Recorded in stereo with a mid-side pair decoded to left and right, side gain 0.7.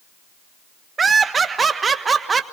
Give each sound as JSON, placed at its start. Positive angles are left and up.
{"t": 1.0, "sound": "laughter", "azimuth_deg": -20, "distance_m": 1.4}